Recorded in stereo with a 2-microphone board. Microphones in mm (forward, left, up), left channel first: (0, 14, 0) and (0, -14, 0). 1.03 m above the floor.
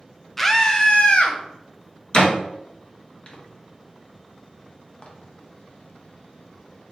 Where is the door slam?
35° left (ahead or behind), 0.7 m.